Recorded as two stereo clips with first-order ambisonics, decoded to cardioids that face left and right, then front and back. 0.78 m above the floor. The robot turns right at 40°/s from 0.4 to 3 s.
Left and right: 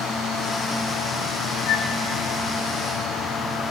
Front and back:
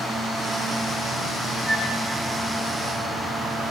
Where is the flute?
80° left, 2.5 m; by 2.0 s 90° left, 2.5 m.